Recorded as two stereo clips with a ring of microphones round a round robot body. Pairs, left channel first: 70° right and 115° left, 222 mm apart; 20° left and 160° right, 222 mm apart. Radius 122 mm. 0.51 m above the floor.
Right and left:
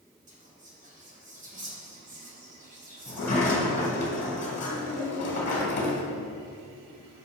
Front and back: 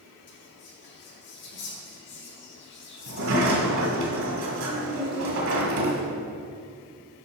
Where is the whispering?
55° left, 2 m.